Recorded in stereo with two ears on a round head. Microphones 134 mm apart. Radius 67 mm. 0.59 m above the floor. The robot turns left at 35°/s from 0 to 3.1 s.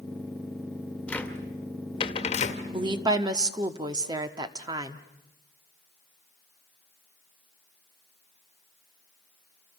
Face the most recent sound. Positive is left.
turn(degrees=-25)  # may be behind; listen again after turning